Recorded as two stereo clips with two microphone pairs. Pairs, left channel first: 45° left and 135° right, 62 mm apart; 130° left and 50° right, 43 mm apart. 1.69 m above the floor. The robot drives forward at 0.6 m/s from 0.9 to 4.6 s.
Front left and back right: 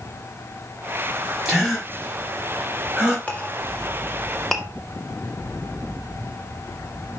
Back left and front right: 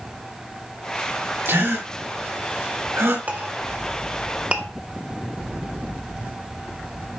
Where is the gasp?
50° right, 5 m; by 3.2 s 60° right, 4.5 m.